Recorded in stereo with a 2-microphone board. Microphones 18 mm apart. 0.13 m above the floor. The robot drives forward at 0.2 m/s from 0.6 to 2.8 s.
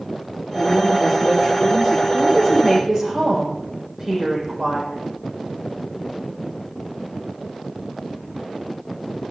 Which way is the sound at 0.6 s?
10° right (ahead or behind).